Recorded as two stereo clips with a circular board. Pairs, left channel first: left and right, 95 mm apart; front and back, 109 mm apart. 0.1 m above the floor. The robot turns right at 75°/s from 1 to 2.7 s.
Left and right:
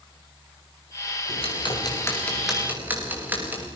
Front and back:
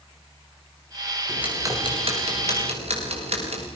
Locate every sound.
1.3 s ticking: 90° left, 6 m; by 3.7 s 160° right, 6 m